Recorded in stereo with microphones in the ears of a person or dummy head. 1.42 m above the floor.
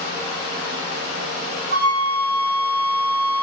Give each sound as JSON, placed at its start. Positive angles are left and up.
{"t": 1.7, "sound": "a flute", "side_deg": -50, "distance_m": 1.6}